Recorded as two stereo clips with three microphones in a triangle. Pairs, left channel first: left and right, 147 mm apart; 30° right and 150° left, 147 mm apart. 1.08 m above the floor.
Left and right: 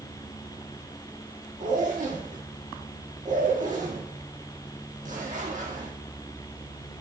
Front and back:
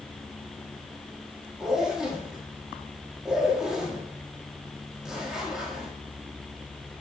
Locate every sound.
1.6 s a zipper: 125° right, 1.6 m